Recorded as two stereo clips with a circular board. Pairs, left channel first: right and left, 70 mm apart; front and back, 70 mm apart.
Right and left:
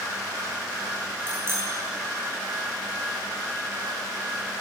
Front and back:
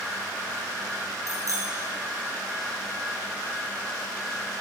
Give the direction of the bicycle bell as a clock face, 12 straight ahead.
7 o'clock.